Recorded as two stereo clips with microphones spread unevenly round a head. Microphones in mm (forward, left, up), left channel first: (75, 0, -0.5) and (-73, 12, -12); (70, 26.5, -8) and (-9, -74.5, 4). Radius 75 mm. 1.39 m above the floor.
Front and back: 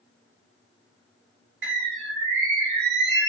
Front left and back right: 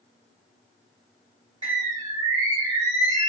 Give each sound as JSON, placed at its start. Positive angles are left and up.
{"t": 1.6, "sound": "a bird", "azimuth_deg": 165, "distance_m": 1.7}